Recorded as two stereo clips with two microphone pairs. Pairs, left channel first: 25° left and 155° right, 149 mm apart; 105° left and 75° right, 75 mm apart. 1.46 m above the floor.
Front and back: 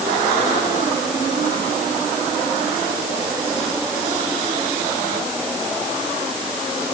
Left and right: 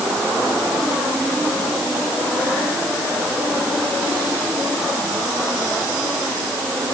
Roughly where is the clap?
No clap in this recording.